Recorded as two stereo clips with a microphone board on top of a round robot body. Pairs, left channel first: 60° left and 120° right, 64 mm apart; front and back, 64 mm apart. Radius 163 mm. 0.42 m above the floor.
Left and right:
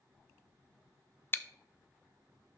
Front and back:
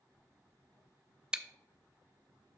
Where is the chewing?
110° left, 0.6 m.